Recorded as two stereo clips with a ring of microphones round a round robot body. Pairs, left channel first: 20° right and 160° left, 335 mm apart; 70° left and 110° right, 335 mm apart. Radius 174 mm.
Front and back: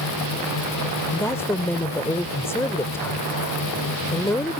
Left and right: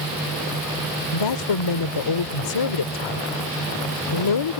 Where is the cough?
I don't hear a cough.